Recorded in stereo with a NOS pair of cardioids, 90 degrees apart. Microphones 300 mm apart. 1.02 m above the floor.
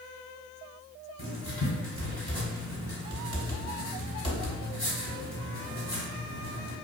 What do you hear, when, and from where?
1.2 s writing: 15° left, 1.9 m